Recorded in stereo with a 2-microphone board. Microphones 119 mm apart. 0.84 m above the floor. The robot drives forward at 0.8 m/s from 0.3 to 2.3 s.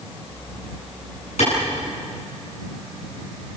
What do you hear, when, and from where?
1.4 s a clap: 70° left (ahead or behind), 9 m